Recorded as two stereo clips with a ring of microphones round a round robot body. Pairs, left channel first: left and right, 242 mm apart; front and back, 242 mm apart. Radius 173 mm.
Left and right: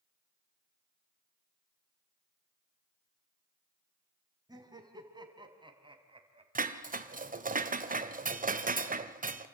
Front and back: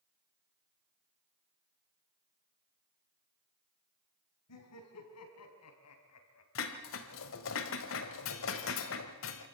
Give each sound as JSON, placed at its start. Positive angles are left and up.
{"t": 4.5, "sound": "laughter", "azimuth_deg": -15, "distance_m": 5.0}
{"t": 6.5, "sound": "dishes clattering", "azimuth_deg": -35, "distance_m": 1.5}